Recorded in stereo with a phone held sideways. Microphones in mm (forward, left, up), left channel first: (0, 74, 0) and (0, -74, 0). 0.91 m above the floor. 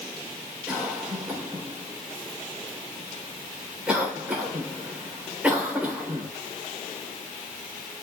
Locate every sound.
0.7 s a cough: 10° right (ahead or behind), 3.5 m